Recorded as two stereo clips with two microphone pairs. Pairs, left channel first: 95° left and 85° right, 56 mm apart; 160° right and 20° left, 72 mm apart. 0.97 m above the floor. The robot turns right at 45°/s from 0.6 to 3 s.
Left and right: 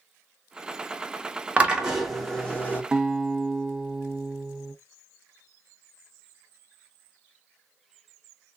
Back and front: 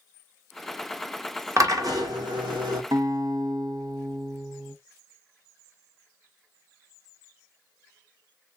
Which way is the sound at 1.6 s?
20° right.